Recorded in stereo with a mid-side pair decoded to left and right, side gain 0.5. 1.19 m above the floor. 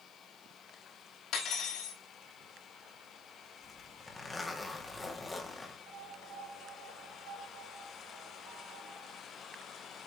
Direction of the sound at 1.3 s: 65° left.